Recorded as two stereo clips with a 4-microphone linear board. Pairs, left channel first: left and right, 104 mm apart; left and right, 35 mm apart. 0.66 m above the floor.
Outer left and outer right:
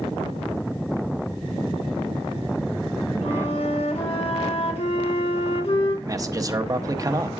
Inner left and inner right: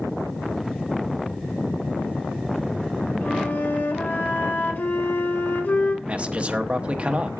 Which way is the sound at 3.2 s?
70° left (ahead or behind).